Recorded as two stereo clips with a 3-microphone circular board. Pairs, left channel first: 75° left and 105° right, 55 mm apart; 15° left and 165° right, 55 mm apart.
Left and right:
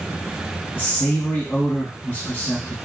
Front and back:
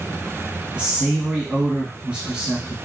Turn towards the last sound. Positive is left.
turn(degrees=125)